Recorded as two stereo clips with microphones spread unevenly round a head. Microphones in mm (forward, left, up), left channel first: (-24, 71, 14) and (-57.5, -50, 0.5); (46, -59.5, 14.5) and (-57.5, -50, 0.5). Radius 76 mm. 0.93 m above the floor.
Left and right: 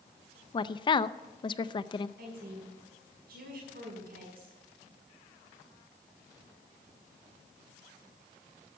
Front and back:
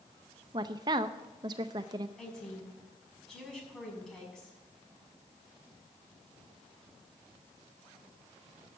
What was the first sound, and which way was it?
A woman speaking, 130° left.